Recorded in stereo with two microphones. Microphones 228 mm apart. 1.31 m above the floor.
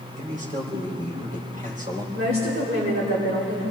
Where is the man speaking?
35° right (ahead or behind), 4 m.